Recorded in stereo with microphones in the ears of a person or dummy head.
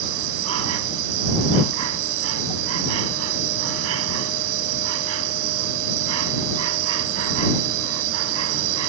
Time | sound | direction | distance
0.0 | an insect | 80° right | ?